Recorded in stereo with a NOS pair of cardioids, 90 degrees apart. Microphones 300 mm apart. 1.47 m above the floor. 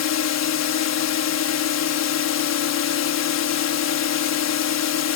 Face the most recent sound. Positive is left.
turn(degrees=60)